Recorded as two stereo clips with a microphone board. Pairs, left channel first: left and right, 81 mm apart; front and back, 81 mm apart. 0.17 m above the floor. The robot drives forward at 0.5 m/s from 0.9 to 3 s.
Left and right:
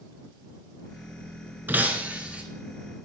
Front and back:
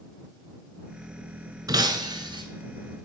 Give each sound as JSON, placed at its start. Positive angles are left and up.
{"t": 1.7, "sound": "breaking glass", "azimuth_deg": -155, "distance_m": 0.6}